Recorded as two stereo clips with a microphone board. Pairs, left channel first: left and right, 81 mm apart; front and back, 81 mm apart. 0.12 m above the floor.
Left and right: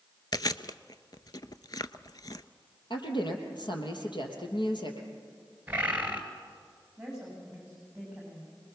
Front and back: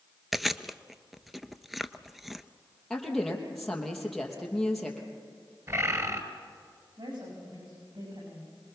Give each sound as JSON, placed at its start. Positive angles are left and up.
{"t": 0.3, "sound": "chewing", "azimuth_deg": 90, "distance_m": 0.5}
{"t": 2.9, "sound": "a woman speaking", "azimuth_deg": 85, "distance_m": 3.5}
{"t": 5.7, "sound": "a bird", "azimuth_deg": -155, "distance_m": 2.0}
{"t": 7.0, "sound": "a woman speaking", "azimuth_deg": -170, "distance_m": 9.0}